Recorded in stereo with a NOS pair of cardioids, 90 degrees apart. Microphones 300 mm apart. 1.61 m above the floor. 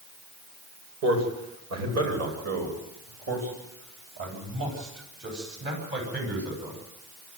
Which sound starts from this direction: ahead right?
A man speaking, at 1.0 s.